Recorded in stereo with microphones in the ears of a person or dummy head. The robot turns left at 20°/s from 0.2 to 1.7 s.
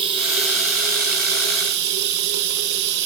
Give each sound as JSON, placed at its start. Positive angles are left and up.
{"t": 0.0, "sound": "running water", "azimuth_deg": -35, "distance_m": 1.0}